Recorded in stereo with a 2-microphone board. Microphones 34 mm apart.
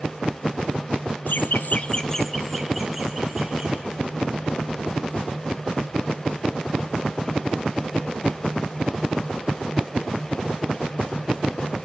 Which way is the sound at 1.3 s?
60° left (ahead or behind).